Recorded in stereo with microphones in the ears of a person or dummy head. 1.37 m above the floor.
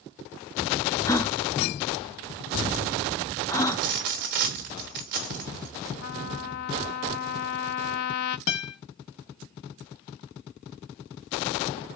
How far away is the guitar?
About 1.1 m.